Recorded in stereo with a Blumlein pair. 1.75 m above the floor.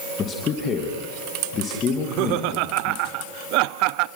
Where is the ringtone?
No ringtone in this recording.